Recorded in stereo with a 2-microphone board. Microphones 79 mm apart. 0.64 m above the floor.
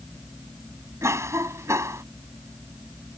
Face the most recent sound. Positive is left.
turn(degrees=-40)  # may be behind; listen again after turning